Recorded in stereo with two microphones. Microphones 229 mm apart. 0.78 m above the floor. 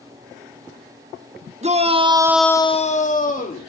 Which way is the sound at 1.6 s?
30° right (ahead or behind).